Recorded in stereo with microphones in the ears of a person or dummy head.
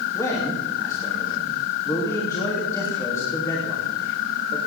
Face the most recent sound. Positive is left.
turn(degrees=20)  # may be behind; listen again after turning